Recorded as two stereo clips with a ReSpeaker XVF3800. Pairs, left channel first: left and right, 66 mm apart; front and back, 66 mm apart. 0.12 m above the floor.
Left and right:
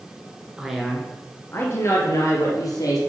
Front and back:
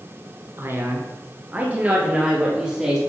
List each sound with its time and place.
0.6 s a man speaking: 160° right, 1.4 m; by 3.0 s 100° left, 3 m